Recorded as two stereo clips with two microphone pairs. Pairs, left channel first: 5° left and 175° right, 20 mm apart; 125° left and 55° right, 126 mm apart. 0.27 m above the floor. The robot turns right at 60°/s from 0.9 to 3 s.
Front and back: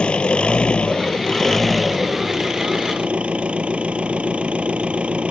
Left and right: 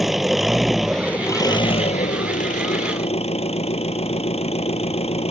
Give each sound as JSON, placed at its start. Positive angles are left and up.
{"t": 0.0, "sound": "an engine running", "azimuth_deg": 30}